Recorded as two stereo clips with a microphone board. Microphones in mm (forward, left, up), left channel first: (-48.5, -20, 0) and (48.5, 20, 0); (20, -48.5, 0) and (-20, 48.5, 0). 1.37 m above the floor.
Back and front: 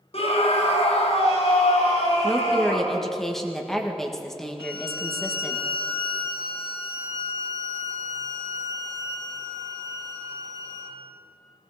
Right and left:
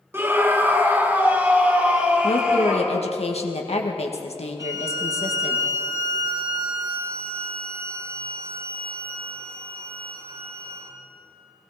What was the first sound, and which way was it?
A scream, straight behind.